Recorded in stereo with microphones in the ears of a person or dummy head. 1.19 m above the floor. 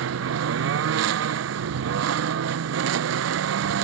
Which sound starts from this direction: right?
A lawn mower, at 0.0 s.